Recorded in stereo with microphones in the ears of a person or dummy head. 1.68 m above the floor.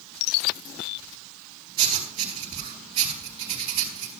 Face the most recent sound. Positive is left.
turn(degrees=-35)  # may be behind; listen again after turning